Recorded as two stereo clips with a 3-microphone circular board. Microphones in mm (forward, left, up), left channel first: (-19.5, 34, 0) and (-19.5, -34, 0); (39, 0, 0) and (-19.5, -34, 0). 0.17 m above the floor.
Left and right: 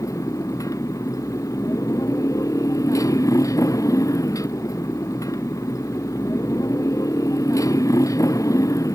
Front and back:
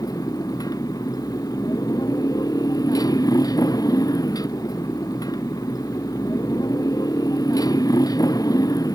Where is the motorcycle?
55° left.